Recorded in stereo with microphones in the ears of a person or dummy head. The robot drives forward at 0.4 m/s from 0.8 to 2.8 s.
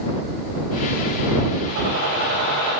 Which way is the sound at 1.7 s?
60° right (ahead or behind).